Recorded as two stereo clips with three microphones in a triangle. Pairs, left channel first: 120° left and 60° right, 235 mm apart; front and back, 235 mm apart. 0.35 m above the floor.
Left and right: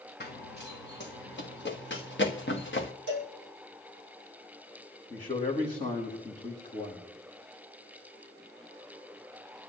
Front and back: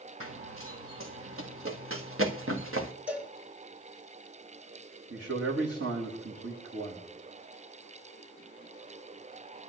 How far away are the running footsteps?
About 1.4 m.